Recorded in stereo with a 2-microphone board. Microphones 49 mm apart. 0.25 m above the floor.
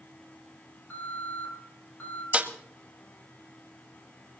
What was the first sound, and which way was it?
An alarm, 45° left (ahead or behind).